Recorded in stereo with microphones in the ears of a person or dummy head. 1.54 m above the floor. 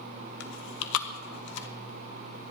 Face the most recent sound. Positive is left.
turn(degrees=70)  # may be behind; listen again after turning